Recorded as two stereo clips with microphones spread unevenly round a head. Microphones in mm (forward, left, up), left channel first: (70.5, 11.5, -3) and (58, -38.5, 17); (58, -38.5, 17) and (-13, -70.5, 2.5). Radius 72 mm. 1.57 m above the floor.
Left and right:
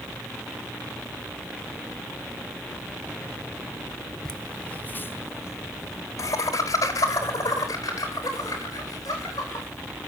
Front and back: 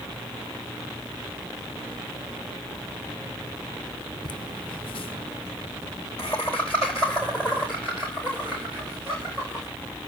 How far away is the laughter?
About 1.4 m.